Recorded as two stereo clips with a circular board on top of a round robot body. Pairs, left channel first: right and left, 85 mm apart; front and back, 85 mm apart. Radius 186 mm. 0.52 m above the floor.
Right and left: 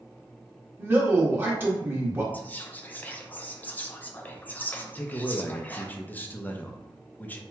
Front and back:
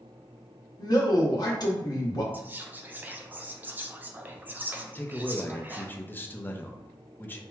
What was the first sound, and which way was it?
A man speaking, 30° left.